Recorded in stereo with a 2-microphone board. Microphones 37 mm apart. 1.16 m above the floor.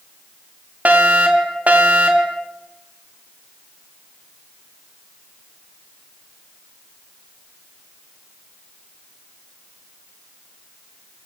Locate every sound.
0.8 s a fire alarm: 50° right (ahead or behind), 3.5 m